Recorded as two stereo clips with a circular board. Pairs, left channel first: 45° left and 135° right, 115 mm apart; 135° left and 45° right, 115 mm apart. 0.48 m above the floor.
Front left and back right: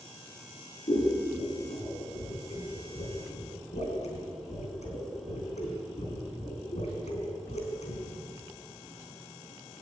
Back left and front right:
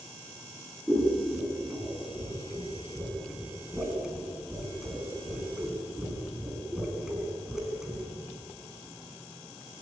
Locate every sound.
0.9 s scissors: 40° left, 5 m